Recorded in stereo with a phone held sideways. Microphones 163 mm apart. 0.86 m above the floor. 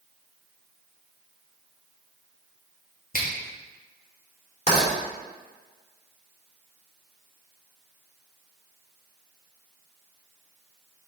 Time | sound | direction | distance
3.1 | a finger snap | 60° left (ahead or behind) | 1.5 m
4.7 | writing | 40° left (ahead or behind) | 3 m